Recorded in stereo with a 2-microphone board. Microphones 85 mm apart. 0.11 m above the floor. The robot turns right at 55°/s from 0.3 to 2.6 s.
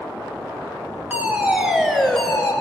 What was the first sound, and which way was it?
A fire alarm, 20° right (ahead or behind).